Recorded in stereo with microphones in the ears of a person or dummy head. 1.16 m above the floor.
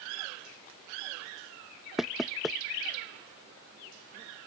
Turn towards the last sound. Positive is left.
turn(degrees=-5)  # may be behind; listen again after turning